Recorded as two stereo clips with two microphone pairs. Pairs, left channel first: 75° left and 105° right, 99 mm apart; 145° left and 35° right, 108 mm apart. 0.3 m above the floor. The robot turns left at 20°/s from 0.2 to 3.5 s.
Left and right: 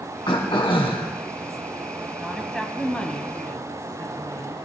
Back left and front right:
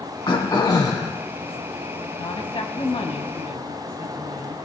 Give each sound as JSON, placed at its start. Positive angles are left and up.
{"t": 0.3, "sound": "throat clearing", "azimuth_deg": 105, "distance_m": 2.5}
{"t": 2.2, "sound": "a woman speaking", "azimuth_deg": 170, "distance_m": 1.8}